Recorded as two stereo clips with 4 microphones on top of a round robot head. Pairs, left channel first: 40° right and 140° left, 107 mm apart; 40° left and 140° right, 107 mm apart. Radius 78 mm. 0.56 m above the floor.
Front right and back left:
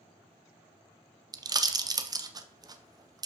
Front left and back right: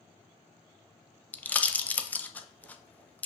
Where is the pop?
110° left, 0.6 m.